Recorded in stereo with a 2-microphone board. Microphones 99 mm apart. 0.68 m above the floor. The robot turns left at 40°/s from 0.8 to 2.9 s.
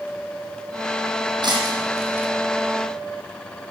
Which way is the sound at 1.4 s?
50° right (ahead or behind).